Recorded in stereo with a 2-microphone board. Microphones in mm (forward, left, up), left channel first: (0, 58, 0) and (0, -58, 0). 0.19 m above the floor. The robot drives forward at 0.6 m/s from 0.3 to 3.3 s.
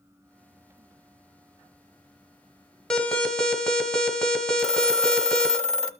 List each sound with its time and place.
2.9 s an alarm: 5° left (ahead or behind), 1.2 m
4.6 s a phone ringing: 5° left (ahead or behind), 0.9 m